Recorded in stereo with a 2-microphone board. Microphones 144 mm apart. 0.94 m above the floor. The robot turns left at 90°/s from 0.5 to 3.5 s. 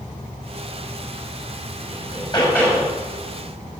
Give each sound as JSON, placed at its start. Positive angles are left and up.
{"t": 1.9, "sound": "hammering", "azimuth_deg": 75, "distance_m": 5.5}